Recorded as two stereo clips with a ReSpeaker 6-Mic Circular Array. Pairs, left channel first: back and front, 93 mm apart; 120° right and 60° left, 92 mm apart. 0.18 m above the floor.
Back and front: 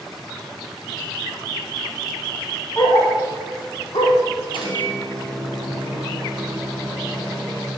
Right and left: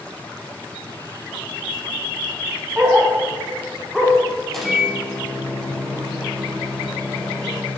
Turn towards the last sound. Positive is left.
turn(degrees=155)